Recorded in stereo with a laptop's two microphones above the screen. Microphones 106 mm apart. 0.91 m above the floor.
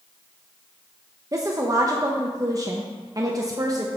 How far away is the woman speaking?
About 0.6 m.